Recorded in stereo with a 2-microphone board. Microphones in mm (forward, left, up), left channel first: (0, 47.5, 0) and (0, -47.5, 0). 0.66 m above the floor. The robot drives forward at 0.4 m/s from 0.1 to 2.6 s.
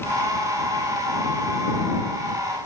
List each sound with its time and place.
Only background noise.